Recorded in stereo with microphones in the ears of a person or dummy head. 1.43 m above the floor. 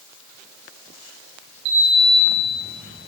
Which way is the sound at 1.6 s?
60° right (ahead or behind).